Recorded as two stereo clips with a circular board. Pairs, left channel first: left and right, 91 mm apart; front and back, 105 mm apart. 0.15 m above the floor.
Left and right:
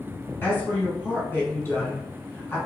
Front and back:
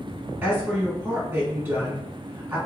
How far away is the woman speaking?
About 1.4 m.